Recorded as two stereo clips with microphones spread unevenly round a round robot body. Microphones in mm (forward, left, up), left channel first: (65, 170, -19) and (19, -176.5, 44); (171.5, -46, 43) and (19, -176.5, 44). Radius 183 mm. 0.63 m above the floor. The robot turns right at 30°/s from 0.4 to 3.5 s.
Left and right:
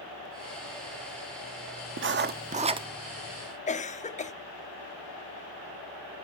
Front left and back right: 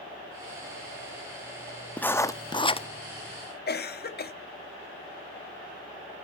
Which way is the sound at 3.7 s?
25° left.